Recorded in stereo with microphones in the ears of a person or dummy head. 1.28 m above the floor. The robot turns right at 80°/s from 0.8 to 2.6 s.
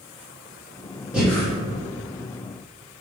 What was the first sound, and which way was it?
Breathing, 5° right (ahead or behind).